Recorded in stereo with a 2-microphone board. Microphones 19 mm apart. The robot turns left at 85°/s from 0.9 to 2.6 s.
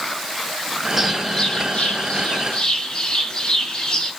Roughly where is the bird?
Behind.